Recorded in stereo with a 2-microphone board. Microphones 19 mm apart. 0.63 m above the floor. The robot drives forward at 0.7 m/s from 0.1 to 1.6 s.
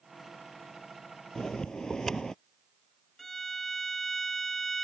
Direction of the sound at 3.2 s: 15° left (ahead or behind).